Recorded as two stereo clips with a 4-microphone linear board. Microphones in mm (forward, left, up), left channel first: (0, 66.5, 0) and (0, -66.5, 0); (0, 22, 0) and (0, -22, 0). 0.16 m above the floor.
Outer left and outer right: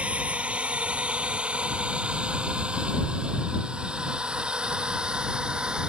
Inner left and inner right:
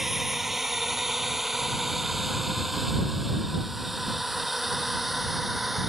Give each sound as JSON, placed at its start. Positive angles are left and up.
{"t": 0.0, "sound": "a drone", "side_deg": -10}